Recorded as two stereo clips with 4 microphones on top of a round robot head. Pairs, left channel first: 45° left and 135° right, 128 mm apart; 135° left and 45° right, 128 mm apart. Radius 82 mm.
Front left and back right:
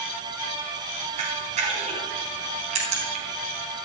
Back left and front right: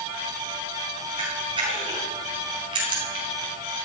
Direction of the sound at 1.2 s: 100° right.